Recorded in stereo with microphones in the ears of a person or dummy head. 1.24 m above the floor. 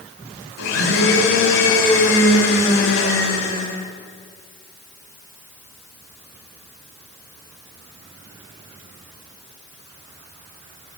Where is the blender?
75° left (ahead or behind), 5.5 m.